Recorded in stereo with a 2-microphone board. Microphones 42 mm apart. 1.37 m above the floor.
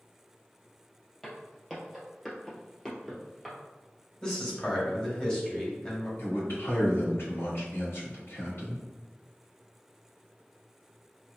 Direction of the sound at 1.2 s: 15° left (ahead or behind).